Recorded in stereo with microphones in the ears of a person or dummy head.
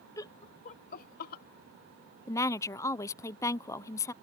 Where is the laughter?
20° left (ahead or behind); by 1.4 s 55° left (ahead or behind).